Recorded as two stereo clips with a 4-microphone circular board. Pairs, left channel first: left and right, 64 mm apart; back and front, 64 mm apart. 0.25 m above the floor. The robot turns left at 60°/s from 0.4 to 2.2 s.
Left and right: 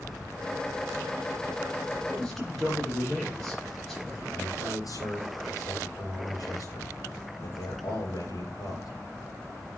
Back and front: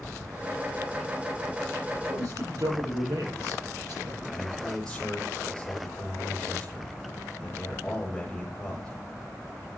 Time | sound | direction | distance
2.1 | a man speaking | 15° left | 6.5 m
4.3 | a man speaking | 100° left | 5.5 m